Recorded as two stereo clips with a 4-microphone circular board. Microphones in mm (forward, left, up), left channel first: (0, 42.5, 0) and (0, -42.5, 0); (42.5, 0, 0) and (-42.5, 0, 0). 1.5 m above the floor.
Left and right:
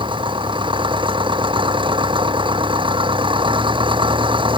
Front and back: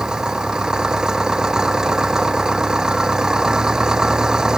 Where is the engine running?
100° right.